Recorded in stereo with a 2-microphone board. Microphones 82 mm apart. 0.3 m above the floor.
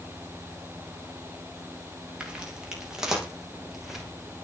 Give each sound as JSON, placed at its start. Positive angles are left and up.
{"t": 2.2, "sound": "footsteps", "side_deg": -10, "distance_m": 7.0}